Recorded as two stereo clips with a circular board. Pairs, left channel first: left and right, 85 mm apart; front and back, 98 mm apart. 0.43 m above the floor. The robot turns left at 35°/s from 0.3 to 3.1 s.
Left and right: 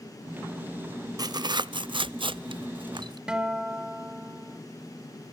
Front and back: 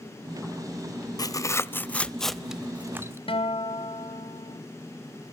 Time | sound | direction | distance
1.2 | tearing paper | 50° right | 0.5 m
3.3 | a guitar | 10° right | 1.4 m